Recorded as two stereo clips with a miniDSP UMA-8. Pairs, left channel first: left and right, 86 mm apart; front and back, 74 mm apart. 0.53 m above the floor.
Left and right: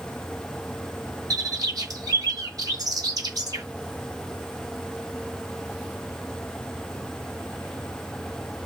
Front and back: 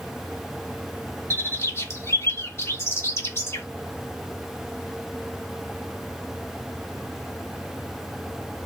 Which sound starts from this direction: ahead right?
A bird, at 1.3 s.